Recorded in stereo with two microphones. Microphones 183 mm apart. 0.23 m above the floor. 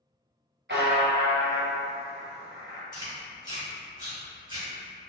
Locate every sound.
0.7 s a buzzer: 85° right, 0.9 m
2.9 s chewing: 20° right (ahead or behind), 1.5 m